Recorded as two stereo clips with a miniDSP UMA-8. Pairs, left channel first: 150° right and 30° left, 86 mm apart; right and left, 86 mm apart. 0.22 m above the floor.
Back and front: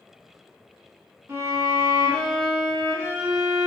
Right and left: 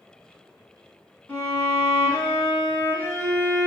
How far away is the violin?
About 0.9 m.